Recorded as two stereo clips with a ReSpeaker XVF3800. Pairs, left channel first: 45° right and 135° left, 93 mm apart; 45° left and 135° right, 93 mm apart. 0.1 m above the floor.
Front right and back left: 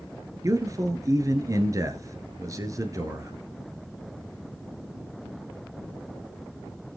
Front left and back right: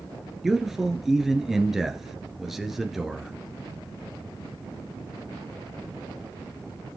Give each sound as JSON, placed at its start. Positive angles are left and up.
{"t": 0.4, "sound": "a man speaking", "azimuth_deg": 140, "distance_m": 1.5}